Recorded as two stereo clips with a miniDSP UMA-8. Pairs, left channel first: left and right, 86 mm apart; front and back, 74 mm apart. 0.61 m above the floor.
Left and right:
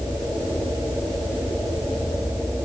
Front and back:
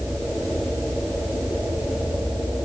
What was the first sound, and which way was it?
Only background noise.